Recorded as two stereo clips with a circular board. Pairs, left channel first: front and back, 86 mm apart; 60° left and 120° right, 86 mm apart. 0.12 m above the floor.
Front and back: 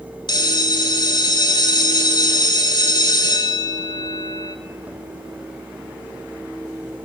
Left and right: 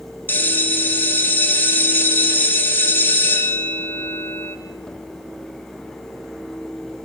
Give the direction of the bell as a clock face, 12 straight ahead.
12 o'clock.